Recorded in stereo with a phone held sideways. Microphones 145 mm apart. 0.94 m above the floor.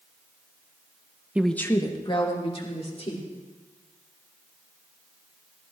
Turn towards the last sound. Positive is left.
turn(degrees=50)  # may be behind; listen again after turning